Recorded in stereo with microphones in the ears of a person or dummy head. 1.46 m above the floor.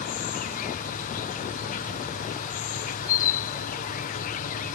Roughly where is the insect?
Left.